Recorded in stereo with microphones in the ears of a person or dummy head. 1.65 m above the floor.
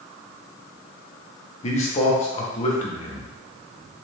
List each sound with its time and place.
1.6 s a man speaking: 35° left (ahead or behind), 0.7 m